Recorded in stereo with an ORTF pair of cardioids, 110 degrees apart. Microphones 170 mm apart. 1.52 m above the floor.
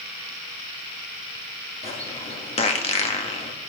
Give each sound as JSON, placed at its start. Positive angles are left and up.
{"t": 1.8, "sound": "a bird", "azimuth_deg": 40, "distance_m": 1.7}